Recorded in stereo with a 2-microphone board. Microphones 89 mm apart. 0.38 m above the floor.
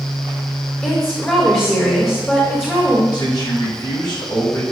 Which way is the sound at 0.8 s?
20° left (ahead or behind).